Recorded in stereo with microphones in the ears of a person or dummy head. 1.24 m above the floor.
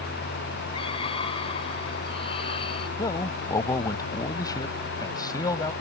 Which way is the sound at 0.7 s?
30° left (ahead or behind).